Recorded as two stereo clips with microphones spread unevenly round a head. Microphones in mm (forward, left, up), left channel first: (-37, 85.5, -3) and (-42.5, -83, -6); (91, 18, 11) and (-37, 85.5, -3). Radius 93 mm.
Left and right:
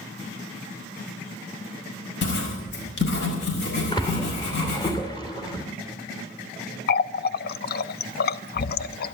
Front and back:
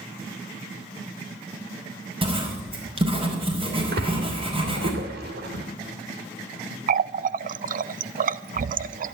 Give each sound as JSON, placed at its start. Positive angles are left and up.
{"t": 2.2, "sound": "writing", "azimuth_deg": 100, "distance_m": 5.0}
{"t": 3.9, "sound": "a splash", "azimuth_deg": 150, "distance_m": 2.5}
{"t": 6.9, "sound": "a running tap", "azimuth_deg": 120, "distance_m": 0.6}